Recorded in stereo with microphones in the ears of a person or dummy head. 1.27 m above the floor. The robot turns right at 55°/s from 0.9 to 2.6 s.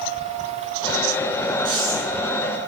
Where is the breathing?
35° right (ahead or behind), 7 m; by 2.0 s 15° right (ahead or behind), 7 m.